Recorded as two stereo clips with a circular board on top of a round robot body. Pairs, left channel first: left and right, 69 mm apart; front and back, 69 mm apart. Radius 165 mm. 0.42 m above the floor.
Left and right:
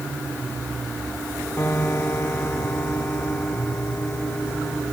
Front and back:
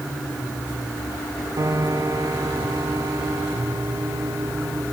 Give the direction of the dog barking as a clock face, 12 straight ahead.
No dog barking in this recording.